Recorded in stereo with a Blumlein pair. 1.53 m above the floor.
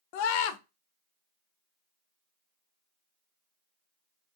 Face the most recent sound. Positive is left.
turn(degrees=45)